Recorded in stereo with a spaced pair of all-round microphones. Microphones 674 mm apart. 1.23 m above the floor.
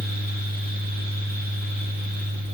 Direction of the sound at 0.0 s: 15° left (ahead or behind).